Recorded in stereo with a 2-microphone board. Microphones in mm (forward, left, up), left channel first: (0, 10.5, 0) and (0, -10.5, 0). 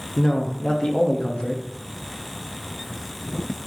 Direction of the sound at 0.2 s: 40° left (ahead or behind).